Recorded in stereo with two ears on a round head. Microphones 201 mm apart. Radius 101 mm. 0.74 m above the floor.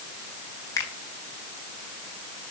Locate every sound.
0.8 s a finger snap: 15° left (ahead or behind), 3.5 m